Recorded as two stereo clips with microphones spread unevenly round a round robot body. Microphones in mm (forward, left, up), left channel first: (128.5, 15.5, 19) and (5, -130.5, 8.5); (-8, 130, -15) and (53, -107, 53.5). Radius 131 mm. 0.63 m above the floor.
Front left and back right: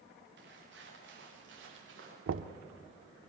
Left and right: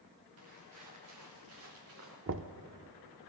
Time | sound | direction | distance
0.4 | footsteps | 105° right | 6 m
2.3 | knocking | 125° right | 0.8 m